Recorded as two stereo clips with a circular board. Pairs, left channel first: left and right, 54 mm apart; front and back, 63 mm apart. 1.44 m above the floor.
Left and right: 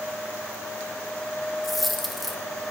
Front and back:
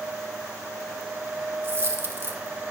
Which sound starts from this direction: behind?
A dropped coin, at 1.6 s.